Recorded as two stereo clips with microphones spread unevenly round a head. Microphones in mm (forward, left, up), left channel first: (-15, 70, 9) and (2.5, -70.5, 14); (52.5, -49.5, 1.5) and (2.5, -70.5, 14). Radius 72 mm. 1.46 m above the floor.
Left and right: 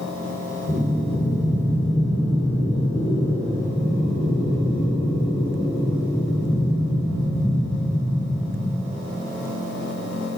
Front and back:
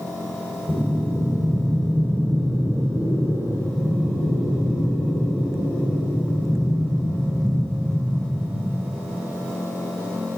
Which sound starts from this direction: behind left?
Breathing, at 0.7 s.